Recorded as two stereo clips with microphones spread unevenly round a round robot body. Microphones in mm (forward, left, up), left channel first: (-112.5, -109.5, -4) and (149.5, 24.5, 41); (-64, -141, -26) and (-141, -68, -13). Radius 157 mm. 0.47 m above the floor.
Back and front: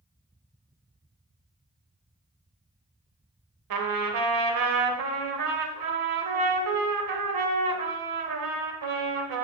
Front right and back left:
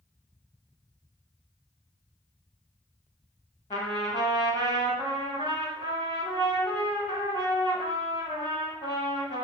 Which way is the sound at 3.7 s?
15° left.